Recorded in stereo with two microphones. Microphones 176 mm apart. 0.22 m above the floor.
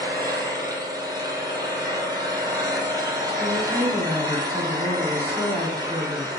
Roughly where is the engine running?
Right.